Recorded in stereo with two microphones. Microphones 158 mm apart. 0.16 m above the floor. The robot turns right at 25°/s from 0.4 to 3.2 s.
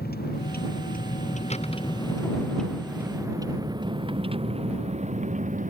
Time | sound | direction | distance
0.0 | a vehicle | 85° left | ?